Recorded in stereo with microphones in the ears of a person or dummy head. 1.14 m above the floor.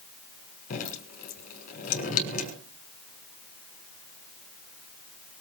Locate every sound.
0.7 s dripping: 45° left (ahead or behind), 5.5 m